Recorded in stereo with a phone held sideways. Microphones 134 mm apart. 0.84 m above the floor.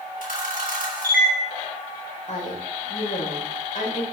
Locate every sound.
0.2 s a camera shutter: 70° left (ahead or behind), 3.5 m
2.3 s a woman speaking: 60° left (ahead or behind), 4 m